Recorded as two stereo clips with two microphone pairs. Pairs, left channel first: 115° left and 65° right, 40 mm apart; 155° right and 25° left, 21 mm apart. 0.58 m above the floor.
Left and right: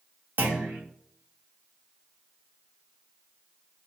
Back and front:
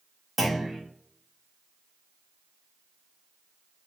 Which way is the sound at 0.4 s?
60° right.